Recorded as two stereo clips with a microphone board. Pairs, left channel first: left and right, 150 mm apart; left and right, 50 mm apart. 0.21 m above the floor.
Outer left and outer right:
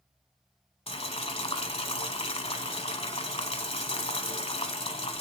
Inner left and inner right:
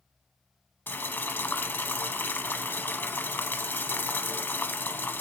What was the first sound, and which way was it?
Boiling, 45° left (ahead or behind).